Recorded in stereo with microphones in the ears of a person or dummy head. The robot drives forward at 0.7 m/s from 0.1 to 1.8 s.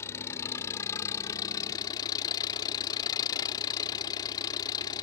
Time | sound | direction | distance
0.0 | an engine running | 15° left (ahead or behind) | ?